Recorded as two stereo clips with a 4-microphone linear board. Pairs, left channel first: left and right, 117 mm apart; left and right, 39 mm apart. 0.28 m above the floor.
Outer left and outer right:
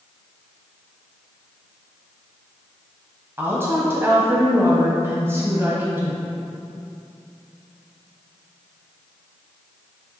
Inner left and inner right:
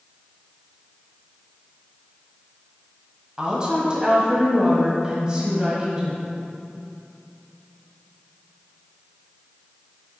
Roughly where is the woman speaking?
Right.